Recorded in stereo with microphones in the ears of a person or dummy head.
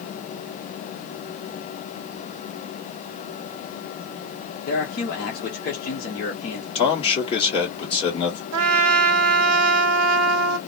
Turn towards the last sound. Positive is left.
turn(degrees=-75)  # may be behind; listen again after turning